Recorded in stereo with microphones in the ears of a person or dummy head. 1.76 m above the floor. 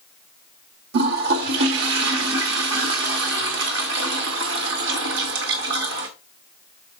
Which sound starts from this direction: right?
A toilet flushing, at 0.9 s.